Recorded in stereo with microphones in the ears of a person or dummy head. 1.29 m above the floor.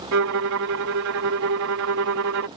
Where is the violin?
65° right (ahead or behind).